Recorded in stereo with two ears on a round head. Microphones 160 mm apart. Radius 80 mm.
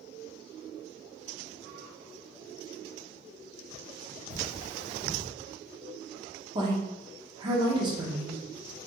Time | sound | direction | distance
4.3 | cutlery clinking | 65° right (ahead or behind) | 2 m
6.5 | a woman speaking | 25° right (ahead or behind) | 0.9 m